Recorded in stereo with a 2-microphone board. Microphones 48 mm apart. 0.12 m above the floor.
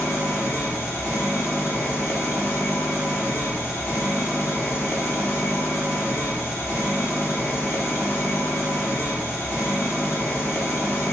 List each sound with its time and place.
0.0 s an engine running: 65° left (ahead or behind), 1.6 m